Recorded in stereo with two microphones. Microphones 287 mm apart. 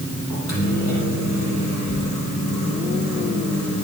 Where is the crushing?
No crushing in this recording.